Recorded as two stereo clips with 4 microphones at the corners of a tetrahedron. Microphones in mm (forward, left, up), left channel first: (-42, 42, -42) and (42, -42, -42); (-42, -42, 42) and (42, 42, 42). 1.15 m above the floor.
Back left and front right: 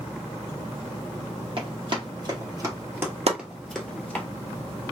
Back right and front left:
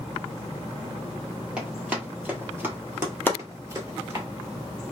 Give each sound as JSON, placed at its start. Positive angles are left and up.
{"t": 1.6, "sound": "running footsteps", "azimuth_deg": -35, "distance_m": 1.6}
{"t": 3.3, "sound": "chopping", "azimuth_deg": -65, "distance_m": 0.7}